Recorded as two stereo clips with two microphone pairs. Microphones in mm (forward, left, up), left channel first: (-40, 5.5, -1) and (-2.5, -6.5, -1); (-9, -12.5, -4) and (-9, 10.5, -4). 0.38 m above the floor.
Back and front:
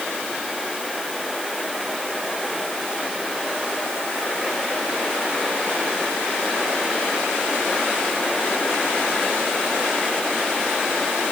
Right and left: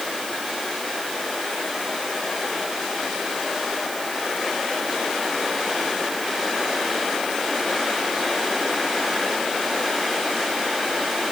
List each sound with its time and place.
Only background noise.